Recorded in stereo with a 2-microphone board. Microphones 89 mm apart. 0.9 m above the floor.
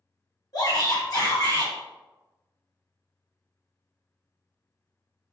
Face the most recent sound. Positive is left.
turn(degrees=50)  # may be behind; listen again after turning